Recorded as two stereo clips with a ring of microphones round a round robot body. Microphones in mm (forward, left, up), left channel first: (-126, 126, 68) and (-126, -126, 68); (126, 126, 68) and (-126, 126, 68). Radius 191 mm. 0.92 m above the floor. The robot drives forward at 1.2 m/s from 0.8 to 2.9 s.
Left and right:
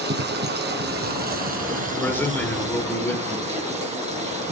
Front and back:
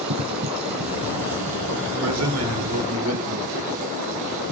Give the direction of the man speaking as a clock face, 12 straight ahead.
6 o'clock.